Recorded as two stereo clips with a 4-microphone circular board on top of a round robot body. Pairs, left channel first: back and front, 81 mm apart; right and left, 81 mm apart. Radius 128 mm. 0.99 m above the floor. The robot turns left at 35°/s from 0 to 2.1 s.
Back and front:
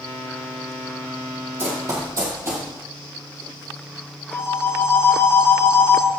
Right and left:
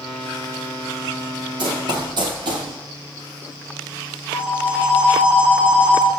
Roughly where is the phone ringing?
Behind.